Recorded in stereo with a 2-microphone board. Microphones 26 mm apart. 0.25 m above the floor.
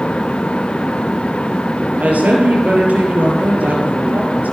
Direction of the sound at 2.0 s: 65° right (ahead or behind).